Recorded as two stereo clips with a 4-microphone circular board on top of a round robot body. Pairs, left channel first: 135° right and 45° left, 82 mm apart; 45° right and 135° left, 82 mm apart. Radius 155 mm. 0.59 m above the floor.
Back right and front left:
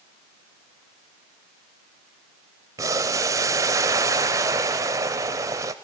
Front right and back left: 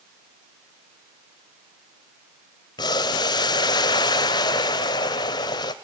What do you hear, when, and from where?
2.8 s boiling: 5° right, 0.5 m